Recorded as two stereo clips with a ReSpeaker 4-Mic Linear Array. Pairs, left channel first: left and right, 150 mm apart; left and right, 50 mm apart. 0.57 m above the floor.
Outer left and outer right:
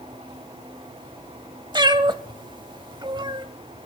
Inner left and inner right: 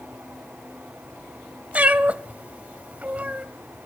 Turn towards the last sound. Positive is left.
turn(degrees=-30)  # may be behind; listen again after turning